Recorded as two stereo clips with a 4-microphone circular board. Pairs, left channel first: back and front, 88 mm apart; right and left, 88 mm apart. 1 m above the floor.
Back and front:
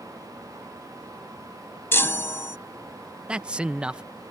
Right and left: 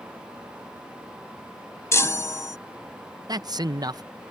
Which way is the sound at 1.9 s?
130° right.